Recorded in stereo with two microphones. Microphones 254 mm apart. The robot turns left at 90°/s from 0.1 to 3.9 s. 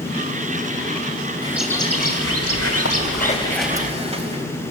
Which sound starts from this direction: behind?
A bird, at 1.4 s.